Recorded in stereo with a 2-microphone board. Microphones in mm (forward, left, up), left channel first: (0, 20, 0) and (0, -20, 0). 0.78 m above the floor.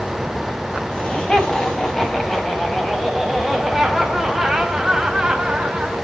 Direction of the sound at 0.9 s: 25° left (ahead or behind).